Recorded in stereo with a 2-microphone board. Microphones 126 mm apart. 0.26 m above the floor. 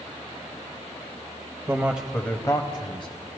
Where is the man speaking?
25° right (ahead or behind), 1.0 m; by 3.1 s 40° left (ahead or behind), 1.6 m.